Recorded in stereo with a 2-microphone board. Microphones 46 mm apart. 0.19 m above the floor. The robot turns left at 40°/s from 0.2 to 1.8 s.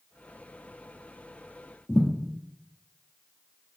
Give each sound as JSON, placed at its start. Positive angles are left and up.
{"t": 1.9, "sound": "a thud", "side_deg": 20, "distance_m": 1.8}